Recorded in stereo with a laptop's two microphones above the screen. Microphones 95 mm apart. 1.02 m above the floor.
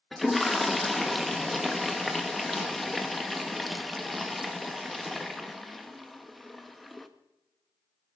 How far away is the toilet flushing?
About 1.2 m.